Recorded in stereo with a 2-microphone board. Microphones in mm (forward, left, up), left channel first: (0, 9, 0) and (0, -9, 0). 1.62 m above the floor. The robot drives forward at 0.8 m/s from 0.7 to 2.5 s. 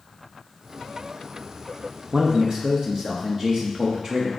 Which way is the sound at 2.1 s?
55° right (ahead or behind).